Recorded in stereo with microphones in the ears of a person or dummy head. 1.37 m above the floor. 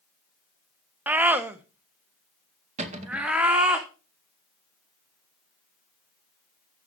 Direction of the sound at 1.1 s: 15° right (ahead or behind).